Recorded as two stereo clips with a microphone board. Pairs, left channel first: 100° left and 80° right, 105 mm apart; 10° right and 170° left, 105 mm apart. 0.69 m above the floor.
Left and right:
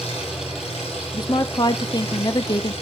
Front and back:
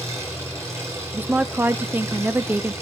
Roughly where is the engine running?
Left.